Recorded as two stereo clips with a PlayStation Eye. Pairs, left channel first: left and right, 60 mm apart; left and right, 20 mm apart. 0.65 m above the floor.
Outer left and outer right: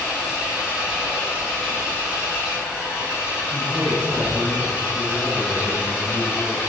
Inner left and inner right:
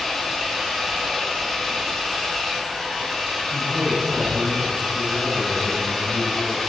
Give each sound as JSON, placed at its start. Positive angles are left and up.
{"t": 0.0, "sound": "an engine running", "side_deg": -15, "distance_m": 4.5}
{"t": 3.5, "sound": "a man speaking", "side_deg": -25, "distance_m": 4.0}